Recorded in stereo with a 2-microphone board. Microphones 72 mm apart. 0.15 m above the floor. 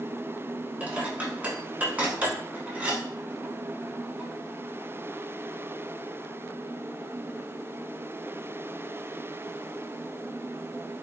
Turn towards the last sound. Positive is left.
turn(degrees=-20)  # may be behind; listen again after turning